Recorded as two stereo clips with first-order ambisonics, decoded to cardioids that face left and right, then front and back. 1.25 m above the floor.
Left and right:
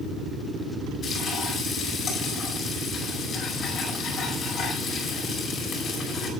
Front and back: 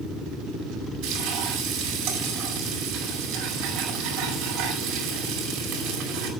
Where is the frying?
160° left, 5 m.